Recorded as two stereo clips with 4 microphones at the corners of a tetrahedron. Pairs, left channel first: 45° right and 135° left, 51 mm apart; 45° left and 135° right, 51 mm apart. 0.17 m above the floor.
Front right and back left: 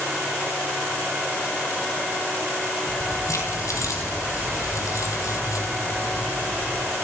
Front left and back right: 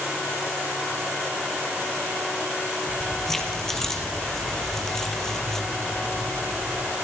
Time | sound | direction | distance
2.9 | keys jangling | 40° right | 4 m